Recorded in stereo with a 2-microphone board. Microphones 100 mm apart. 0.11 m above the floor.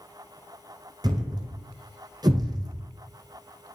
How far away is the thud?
About 1.1 m.